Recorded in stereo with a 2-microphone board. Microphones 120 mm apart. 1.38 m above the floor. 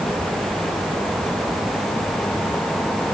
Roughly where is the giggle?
I don't hear a giggle.